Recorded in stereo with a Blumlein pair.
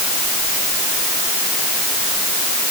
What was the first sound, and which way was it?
Only background noise.